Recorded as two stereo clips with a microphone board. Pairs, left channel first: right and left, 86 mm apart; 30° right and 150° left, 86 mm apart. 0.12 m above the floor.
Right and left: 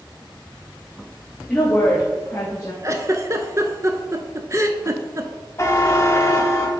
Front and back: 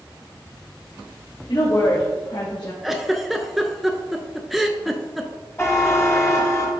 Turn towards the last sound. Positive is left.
turn(degrees=-60)